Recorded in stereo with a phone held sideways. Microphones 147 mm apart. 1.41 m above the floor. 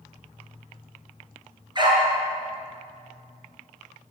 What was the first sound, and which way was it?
A dog barking, 30° right (ahead or behind).